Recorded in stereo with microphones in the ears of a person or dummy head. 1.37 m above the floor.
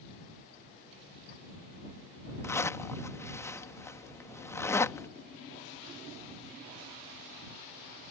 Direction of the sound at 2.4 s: 15° left (ahead or behind).